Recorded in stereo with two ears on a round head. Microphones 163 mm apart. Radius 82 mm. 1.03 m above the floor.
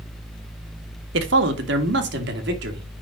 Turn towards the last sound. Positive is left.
turn(degrees=-65)  # may be behind; listen again after turning